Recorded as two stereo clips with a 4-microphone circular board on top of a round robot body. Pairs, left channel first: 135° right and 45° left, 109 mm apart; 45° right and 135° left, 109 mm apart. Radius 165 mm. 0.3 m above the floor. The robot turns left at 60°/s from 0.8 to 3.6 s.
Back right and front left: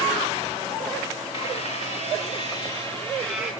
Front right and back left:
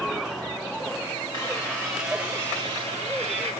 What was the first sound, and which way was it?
A squeak, 100° right.